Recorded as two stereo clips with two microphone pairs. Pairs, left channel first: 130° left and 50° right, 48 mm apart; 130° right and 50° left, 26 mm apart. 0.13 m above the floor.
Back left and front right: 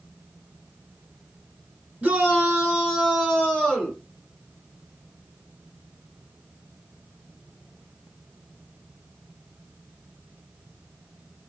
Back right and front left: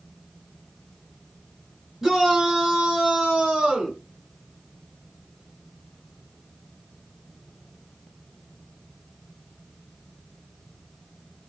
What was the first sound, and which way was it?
A shout, 35° right.